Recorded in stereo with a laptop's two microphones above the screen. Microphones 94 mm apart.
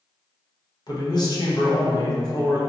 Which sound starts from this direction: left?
A man speaking, at 0.9 s.